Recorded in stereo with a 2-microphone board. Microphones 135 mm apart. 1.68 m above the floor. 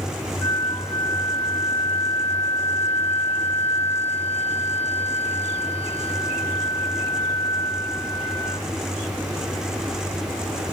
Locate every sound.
0.4 s a flute: 10° left (ahead or behind), 4.5 m